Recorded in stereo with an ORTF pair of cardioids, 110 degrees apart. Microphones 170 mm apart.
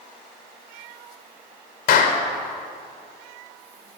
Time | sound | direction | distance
1.9 | a clap | 65° left | 3.5 m